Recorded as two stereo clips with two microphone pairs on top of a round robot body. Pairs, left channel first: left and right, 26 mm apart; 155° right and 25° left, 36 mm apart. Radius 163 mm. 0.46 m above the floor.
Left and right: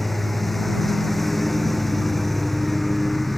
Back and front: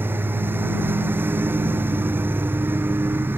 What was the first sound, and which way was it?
A lawn mower, 5° left.